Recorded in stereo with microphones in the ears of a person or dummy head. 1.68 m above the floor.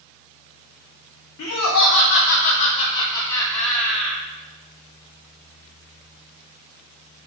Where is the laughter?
70° left (ahead or behind), 0.6 m; by 4.2 s 5° right (ahead or behind), 1.2 m.